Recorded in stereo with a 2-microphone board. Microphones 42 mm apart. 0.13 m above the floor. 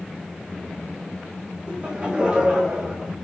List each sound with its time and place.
1.7 s laughter: 20° right (ahead or behind), 6 m; by 3.1 s 10° right (ahead or behind), 6 m